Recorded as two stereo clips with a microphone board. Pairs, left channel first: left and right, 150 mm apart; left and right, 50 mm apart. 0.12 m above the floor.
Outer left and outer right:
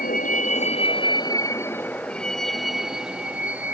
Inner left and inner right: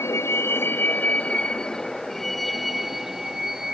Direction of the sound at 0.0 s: 70° left (ahead or behind).